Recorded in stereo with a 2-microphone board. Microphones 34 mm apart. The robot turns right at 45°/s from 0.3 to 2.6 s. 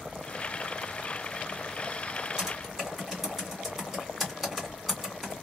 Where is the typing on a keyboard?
15° right (ahead or behind), 1.8 m; by 5.4 s 10° right (ahead or behind), 1.8 m.